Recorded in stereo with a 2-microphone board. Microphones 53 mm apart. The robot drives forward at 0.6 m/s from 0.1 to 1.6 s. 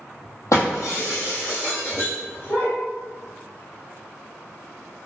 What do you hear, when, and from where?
0.5 s breaking glass: 70° left (ahead or behind), 1.3 m; by 2.7 s 50° left (ahead or behind), 1.6 m